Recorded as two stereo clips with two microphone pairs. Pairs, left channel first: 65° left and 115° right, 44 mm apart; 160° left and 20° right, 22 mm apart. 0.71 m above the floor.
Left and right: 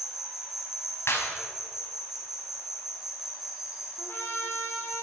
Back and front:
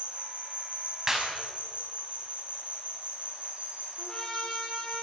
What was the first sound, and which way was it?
An insect, 35° right.